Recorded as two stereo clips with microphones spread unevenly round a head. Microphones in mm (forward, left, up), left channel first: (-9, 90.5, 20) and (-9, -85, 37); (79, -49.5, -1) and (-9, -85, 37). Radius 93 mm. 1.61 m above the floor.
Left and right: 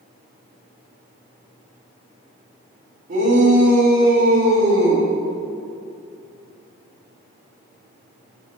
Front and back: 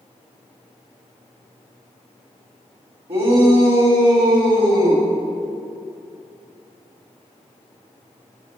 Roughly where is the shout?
Behind right.